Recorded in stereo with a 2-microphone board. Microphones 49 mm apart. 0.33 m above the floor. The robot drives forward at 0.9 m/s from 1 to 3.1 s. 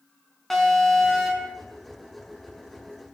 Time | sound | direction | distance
0.5 | an alarm | 5° left (ahead or behind) | 4 m